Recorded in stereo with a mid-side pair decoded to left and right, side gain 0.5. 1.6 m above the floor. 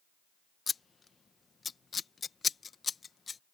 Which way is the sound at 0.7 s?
35° left.